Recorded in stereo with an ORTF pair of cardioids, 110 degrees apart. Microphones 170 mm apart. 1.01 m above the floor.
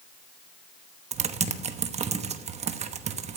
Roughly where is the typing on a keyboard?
Ahead right.